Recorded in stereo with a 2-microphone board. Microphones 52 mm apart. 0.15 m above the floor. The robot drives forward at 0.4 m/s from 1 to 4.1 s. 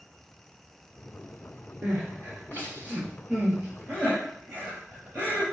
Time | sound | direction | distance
1.8 | crying | 35° right (ahead or behind) | 3 m